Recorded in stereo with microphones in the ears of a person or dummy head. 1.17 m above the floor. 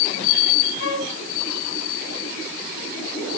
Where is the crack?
No crack in this recording.